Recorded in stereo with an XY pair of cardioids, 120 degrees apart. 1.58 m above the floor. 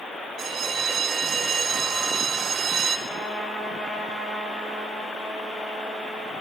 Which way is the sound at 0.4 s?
45° right.